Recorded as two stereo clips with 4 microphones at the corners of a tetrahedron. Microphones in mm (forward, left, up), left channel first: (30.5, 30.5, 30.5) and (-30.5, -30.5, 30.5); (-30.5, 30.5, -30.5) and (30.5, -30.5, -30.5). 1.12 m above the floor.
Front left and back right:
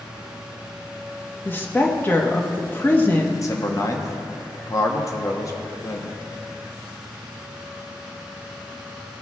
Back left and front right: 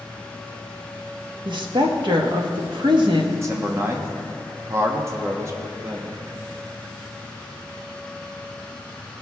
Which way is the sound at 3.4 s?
Straight ahead.